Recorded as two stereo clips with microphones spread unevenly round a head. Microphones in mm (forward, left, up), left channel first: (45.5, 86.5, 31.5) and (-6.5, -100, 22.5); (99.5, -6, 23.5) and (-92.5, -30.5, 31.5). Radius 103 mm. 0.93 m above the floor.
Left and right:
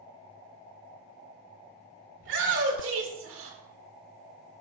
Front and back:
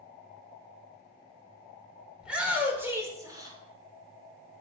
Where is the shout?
85° right, 4 m; by 3.6 s 105° right, 4 m.